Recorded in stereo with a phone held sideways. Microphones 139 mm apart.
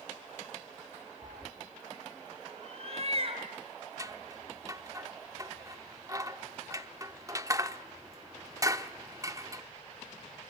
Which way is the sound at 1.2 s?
55° right (ahead or behind).